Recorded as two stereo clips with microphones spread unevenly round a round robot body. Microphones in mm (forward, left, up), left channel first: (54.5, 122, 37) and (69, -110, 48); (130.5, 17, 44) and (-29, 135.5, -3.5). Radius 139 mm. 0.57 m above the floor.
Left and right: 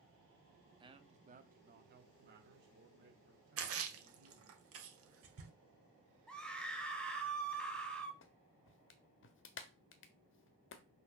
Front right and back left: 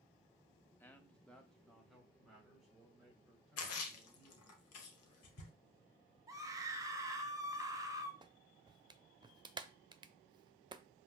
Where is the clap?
90° left, 0.8 m.